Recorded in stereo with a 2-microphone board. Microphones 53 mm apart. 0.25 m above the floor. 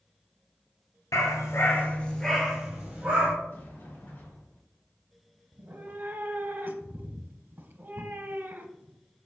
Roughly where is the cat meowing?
Right.